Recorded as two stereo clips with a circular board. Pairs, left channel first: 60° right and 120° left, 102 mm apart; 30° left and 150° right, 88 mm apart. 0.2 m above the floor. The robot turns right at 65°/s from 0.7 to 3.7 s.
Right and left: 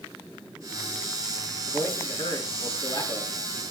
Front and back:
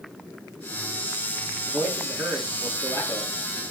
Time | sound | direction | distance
1.7 | a man speaking | 100° right | 2.5 m